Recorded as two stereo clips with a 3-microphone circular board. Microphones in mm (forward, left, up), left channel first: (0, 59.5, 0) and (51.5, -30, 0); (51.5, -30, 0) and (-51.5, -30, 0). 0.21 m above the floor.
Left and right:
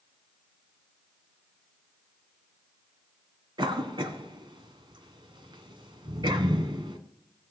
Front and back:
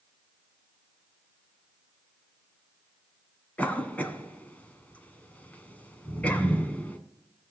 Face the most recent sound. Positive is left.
turn(degrees=-75)